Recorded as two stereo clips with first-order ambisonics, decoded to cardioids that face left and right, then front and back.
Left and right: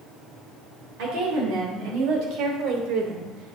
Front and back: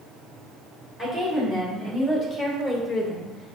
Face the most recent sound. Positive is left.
turn(degrees=-90)